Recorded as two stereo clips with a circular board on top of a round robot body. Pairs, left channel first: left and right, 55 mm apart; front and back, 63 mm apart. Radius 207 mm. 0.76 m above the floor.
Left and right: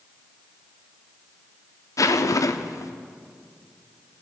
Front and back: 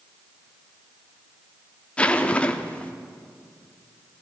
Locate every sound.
2.0 s a zipper: 70° left, 1.1 m